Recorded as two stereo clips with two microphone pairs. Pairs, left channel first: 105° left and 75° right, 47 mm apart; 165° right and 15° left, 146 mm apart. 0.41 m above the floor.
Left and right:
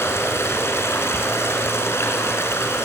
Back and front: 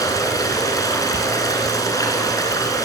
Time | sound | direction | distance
0.0 | running water | 125° left | 4.5 m